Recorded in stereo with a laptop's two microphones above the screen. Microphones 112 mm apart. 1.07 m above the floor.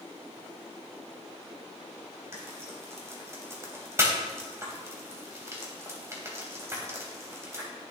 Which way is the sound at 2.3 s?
25° right (ahead or behind).